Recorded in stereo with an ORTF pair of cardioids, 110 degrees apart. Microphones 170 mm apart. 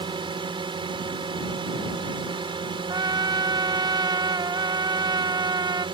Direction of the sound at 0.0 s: 30° right.